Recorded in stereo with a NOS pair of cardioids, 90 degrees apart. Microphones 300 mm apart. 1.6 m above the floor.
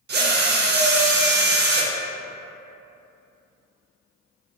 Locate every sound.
0.1 s a drill: 35° right, 0.6 m